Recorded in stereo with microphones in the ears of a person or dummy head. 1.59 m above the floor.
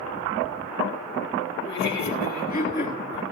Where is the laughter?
65° left (ahead or behind), 3.5 m; by 3.2 s 30° left (ahead or behind), 4 m.